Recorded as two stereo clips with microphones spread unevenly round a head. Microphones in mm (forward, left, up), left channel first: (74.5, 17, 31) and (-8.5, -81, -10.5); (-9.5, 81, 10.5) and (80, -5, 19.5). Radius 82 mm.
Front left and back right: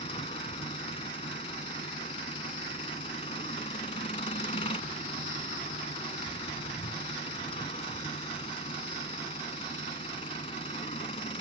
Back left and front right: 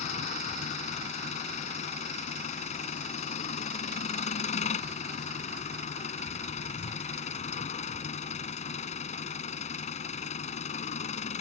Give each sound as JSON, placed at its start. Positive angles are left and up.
{"t": 0.0, "sound": "an engine running", "azimuth_deg": 105}